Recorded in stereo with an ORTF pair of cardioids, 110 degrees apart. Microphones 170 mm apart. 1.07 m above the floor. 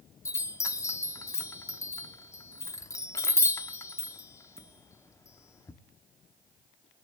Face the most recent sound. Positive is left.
turn(degrees=20)